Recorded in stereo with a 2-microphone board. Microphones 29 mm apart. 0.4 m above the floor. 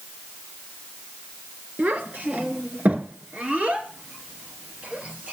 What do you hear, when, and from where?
1.8 s a child speaking: 75° right (ahead or behind), 3.5 m; by 5.3 s 45° right (ahead or behind), 6 m